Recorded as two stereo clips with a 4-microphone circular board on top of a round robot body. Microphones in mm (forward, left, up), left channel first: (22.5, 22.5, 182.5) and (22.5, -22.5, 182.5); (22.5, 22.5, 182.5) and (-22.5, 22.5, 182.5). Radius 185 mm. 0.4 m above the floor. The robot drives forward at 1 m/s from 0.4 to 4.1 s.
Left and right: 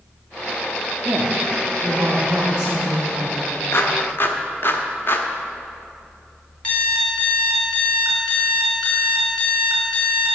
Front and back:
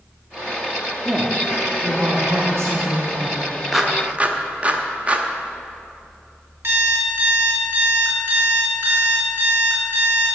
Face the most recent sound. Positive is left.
turn(degrees=160)